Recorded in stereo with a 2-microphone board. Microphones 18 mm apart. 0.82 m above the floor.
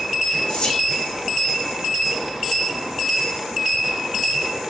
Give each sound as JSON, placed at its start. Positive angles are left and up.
{"t": 0.5, "sound": "whispering", "side_deg": 55, "distance_m": 0.8}